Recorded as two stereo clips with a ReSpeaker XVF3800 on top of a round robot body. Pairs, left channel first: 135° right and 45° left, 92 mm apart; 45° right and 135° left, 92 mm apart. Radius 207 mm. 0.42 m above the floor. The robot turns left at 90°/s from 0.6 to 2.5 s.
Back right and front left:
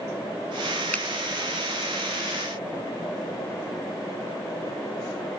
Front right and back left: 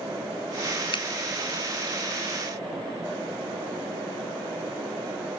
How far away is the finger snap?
About 0.8 m.